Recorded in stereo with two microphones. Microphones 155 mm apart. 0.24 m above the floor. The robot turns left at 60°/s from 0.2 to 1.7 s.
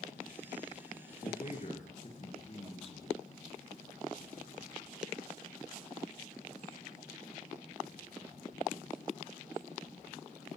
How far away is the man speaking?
About 3.5 m.